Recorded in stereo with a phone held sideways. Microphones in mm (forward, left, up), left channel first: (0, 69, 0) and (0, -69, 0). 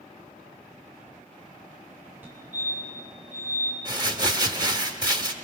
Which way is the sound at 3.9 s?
30° right (ahead or behind).